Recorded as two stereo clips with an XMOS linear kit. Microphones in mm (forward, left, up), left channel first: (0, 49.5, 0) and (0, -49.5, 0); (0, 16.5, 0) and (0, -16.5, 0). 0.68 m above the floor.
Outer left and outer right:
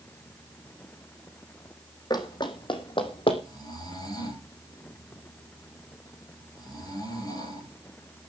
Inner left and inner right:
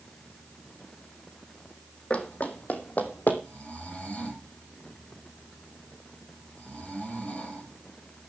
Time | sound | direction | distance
2.1 | running footsteps | 45° left (ahead or behind) | 2 m
3.4 | snoring | 40° left (ahead or behind) | 9 m